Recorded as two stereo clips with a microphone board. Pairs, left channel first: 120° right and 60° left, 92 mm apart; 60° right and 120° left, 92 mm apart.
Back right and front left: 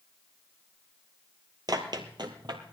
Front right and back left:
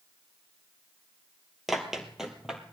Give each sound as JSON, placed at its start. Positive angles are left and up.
{"t": 1.7, "sound": "running footsteps", "azimuth_deg": 30, "distance_m": 1.7}